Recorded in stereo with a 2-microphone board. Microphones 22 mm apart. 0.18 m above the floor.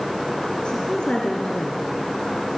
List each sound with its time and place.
0.7 s a woman speaking: 45° left (ahead or behind), 2.5 m